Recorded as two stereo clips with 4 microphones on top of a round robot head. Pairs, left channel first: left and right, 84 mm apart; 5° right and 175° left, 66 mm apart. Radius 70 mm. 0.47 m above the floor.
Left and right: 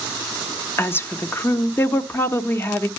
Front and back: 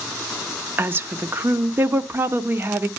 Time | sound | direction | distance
0.8 | a woman speaking | 135° left | 0.9 m